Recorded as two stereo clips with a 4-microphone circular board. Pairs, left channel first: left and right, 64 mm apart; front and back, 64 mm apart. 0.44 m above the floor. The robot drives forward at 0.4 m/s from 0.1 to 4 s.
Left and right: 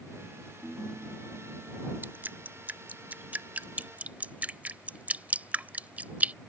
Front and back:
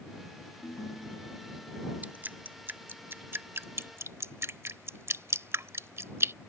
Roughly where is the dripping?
Behind right.